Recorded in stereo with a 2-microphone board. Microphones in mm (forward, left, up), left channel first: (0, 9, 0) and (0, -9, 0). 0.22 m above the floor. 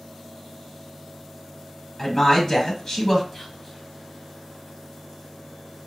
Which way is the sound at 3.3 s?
20° left (ahead or behind).